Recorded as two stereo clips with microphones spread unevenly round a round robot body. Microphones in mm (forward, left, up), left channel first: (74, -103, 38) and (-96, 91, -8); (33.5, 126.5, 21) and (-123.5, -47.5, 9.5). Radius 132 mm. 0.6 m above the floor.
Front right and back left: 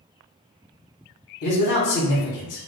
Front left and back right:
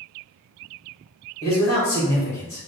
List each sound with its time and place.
1.4 s a man speaking: 30° right, 1.9 m